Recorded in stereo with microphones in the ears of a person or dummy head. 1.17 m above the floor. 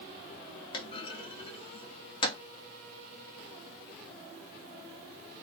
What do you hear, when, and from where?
0.7 s a clunk: 25° left (ahead or behind), 0.5 m